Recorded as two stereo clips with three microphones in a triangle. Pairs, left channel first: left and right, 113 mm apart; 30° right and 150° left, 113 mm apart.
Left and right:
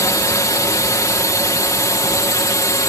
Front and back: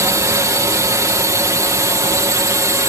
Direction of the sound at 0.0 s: 120° left.